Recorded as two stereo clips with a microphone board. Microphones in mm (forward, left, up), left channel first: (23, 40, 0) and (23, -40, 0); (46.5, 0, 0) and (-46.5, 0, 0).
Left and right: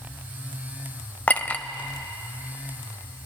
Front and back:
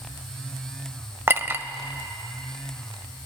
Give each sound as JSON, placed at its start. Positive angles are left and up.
{"t": 1.3, "sound": "a clink", "azimuth_deg": 140, "distance_m": 0.5}